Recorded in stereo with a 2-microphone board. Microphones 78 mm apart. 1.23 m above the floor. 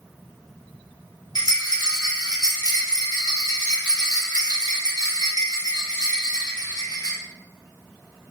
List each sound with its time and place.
1.4 s a rattle: 60° left (ahead or behind), 0.8 m